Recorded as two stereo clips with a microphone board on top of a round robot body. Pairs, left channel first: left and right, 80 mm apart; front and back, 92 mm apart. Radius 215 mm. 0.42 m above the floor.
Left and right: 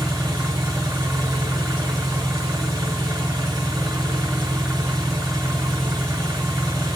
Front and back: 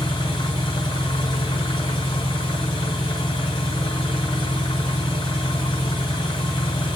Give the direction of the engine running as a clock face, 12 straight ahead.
1 o'clock.